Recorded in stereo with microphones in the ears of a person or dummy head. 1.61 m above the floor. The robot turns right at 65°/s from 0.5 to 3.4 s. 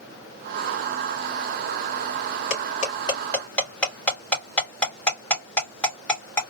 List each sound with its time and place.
2.5 s cutlery clinking: 60° left (ahead or behind), 2 m; by 6.4 s 10° left (ahead or behind), 2 m